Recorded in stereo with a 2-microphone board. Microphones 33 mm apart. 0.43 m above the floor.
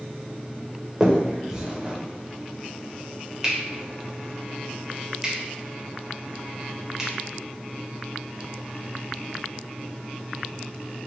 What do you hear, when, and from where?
1.0 s a finger snap: 20° right (ahead or behind), 1.0 m